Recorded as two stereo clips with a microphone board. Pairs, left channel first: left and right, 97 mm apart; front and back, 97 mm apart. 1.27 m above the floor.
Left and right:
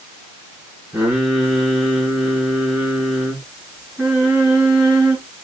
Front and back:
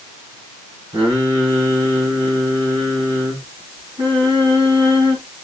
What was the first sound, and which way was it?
Singing, 165° right.